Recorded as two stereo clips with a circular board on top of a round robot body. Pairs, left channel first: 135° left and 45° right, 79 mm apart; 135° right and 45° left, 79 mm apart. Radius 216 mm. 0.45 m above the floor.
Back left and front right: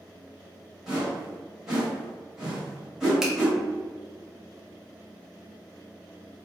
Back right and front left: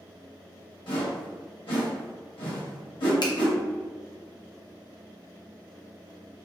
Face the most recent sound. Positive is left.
turn(degrees=-130)